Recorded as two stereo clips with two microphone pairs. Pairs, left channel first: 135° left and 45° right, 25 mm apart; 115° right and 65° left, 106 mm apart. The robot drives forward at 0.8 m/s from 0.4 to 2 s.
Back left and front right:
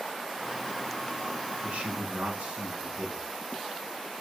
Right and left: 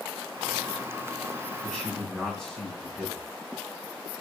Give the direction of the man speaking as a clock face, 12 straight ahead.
1 o'clock.